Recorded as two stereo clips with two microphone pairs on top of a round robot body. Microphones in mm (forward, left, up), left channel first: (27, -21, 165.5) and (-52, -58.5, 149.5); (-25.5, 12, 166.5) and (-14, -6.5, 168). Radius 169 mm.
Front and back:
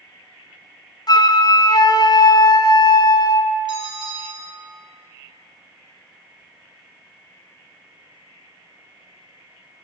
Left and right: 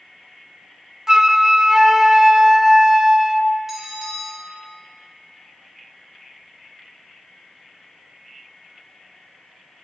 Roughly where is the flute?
Ahead.